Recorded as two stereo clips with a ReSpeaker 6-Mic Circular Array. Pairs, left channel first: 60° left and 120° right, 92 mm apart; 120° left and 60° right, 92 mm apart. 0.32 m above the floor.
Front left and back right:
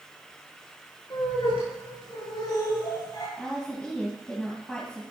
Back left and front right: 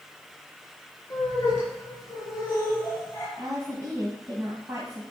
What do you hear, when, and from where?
1.1 s laughter: 70° left, 6 m; by 3.3 s 60° left, 5.5 m
3.4 s a woman speaking: 15° right, 2 m